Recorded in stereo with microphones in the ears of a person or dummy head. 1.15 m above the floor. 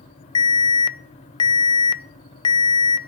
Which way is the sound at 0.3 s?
20° left (ahead or behind).